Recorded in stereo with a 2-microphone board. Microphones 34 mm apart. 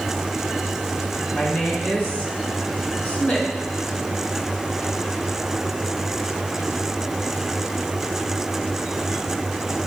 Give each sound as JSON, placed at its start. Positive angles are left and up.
{"t": 1.3, "sound": "a woman speaking", "side_deg": 45, "distance_m": 3.5}